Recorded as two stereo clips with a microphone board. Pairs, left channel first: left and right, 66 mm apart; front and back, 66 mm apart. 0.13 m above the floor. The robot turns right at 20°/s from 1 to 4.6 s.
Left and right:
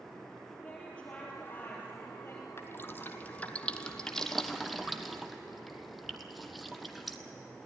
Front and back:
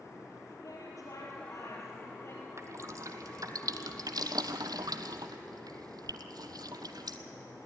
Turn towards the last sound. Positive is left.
turn(degrees=180)